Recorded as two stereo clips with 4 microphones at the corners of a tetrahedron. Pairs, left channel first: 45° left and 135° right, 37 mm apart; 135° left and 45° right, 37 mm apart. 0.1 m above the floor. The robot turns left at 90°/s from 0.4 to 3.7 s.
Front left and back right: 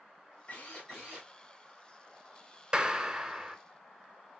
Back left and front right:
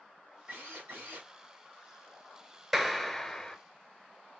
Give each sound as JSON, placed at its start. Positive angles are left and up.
{"t": 0.5, "sound": "a drill", "azimuth_deg": 5, "distance_m": 4.5}
{"t": 2.7, "sound": "a clap", "azimuth_deg": -135, "distance_m": 1.0}